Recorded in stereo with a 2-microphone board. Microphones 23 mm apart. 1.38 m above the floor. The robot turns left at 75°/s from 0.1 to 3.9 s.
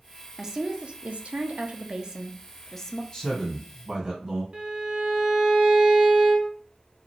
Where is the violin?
45° right (ahead or behind), 0.7 m.